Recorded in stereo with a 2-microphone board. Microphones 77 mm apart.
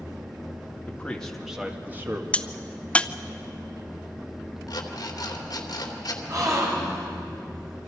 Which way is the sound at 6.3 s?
50° right (ahead or behind).